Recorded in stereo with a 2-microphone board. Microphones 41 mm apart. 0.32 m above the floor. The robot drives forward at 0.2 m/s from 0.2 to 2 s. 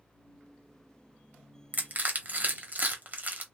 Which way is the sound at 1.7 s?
45° right (ahead or behind).